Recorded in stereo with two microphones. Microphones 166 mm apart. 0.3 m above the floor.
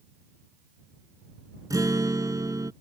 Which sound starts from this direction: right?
A guitar, at 1.7 s.